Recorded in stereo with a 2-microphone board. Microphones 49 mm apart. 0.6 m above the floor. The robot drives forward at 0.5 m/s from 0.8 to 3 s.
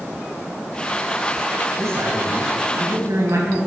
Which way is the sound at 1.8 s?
70° right (ahead or behind).